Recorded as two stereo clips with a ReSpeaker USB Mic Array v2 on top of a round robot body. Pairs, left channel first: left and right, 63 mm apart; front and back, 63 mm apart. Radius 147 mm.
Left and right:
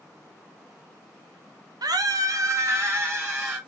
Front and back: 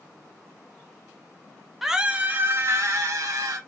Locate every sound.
1.8 s a scream: 95° right, 0.6 m; by 3.6 s 145° right, 1.2 m